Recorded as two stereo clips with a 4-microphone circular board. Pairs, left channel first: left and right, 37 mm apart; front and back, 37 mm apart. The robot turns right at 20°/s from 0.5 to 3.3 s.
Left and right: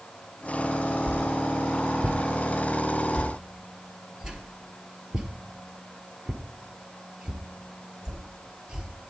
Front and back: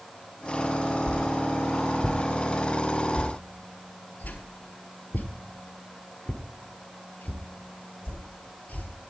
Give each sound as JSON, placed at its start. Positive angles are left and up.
{"t": 1.1, "sound": "a whoosh", "azimuth_deg": -70, "distance_m": 1.2}